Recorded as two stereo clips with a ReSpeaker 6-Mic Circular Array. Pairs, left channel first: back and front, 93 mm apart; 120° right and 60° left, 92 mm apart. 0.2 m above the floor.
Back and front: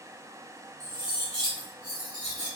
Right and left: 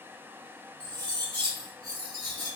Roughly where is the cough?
I don't hear a cough.